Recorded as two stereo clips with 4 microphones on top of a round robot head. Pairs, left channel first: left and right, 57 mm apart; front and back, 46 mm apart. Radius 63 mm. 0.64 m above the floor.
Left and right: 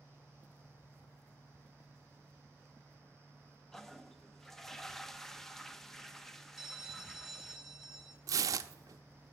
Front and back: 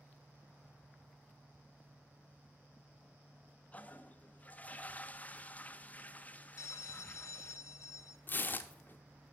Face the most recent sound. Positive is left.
turn(degrees=-60)